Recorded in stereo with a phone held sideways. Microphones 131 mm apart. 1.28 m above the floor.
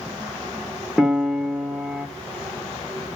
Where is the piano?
Centre (ahead or behind), 1.8 m.